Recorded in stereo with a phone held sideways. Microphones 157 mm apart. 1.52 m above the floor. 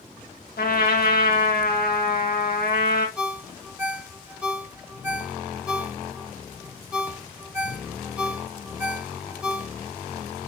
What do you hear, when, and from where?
0.6 s a trumpet: 75° left (ahead or behind), 1.9 m
3.2 s a ringtone: 5° right (ahead or behind), 1.5 m